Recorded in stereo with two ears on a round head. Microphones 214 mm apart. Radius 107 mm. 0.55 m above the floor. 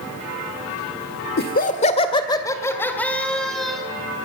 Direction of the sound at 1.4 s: 45° left (ahead or behind).